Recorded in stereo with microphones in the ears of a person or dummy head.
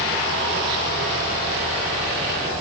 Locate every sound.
Only background noise.